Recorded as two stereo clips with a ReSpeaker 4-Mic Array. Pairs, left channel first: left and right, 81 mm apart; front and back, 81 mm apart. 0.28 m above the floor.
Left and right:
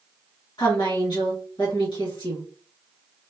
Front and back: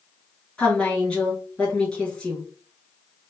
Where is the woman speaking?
75° left, 2.5 m.